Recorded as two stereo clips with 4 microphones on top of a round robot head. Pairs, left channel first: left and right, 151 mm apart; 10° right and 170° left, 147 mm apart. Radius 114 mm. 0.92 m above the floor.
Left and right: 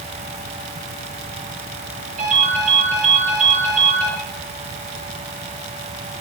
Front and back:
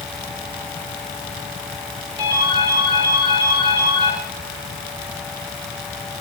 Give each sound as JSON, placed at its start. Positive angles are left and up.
{"t": 2.2, "sound": "a ringtone", "azimuth_deg": -125, "distance_m": 9.5}